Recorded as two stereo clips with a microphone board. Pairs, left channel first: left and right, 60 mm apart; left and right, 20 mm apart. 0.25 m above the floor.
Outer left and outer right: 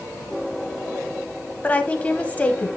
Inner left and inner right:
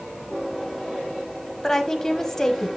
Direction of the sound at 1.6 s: 25° left (ahead or behind).